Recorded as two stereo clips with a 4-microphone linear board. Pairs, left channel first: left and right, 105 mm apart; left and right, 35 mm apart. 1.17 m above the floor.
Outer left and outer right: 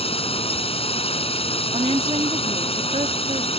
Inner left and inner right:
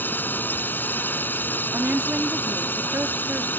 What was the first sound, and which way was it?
A drone, 65° left (ahead or behind).